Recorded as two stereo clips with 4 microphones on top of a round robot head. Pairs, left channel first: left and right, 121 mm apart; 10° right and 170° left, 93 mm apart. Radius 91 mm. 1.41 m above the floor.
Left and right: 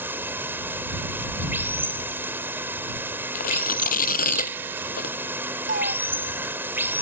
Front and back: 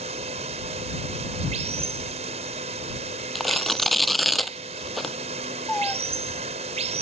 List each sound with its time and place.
0.0 s running water: 165° right
3.4 s tearing paper: 80° left
5.7 s a cat meowing: 95° right